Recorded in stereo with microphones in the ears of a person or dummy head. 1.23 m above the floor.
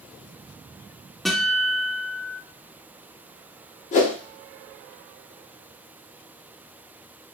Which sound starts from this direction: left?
A whoosh, at 3.9 s.